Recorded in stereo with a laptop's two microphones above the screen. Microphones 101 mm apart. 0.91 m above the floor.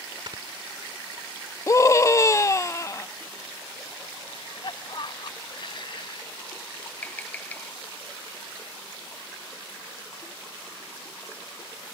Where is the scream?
30° left (ahead or behind).